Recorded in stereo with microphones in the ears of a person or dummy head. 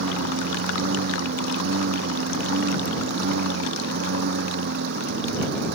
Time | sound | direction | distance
0.0 | a lawn mower | 55° right (ahead or behind) | ?